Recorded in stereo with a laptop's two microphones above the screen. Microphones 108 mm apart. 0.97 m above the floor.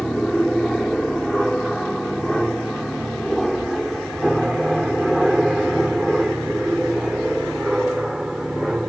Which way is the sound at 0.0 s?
5° left (ahead or behind).